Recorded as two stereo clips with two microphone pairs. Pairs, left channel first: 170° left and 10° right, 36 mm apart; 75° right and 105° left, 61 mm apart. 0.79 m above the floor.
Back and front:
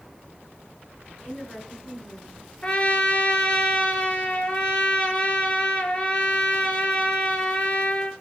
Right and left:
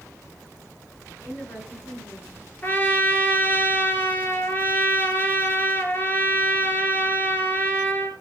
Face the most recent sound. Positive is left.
turn(degrees=-130)